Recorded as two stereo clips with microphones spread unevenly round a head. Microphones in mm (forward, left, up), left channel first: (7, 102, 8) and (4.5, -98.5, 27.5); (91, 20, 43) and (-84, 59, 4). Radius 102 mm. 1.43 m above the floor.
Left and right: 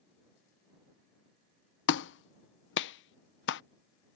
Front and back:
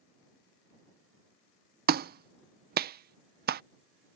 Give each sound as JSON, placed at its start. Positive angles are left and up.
{"t": 1.9, "sound": "a clap", "azimuth_deg": 125}